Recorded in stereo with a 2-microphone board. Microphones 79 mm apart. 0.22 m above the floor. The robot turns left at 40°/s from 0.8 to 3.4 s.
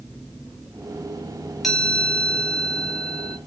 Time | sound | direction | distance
1.6 | a chime | centre (ahead or behind) | 1.3 m